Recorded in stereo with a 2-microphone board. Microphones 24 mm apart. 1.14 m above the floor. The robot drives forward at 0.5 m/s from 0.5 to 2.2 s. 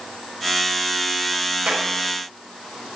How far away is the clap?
About 4 m.